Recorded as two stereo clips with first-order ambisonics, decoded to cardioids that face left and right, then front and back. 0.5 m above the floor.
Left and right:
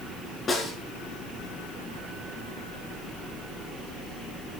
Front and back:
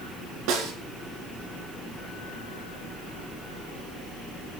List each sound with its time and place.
0.5 s a snare drum: 160° left, 3 m